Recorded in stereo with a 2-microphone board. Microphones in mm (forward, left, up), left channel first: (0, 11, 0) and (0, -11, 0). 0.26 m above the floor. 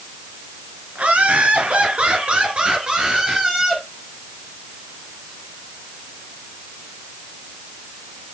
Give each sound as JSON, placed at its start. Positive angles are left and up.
{"t": 0.9, "sound": "laughter", "side_deg": -70, "distance_m": 3.5}